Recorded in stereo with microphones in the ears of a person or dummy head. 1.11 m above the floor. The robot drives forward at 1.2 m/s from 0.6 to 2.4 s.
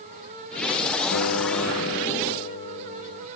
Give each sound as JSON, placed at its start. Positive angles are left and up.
{"t": 1.1, "sound": "a guitar", "side_deg": 80}